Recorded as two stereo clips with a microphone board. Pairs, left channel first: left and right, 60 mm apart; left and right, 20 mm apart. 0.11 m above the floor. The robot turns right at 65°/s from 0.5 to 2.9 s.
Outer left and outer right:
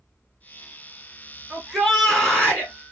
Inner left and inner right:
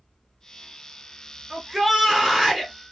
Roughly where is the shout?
Ahead.